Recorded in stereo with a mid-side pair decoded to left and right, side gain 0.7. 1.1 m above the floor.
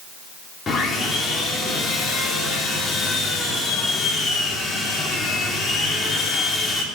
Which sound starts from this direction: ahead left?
Sawing, at 0.7 s.